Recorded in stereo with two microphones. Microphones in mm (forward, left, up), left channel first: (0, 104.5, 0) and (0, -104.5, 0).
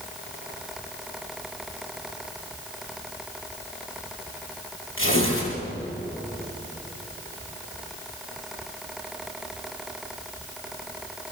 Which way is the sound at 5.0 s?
75° left (ahead or behind).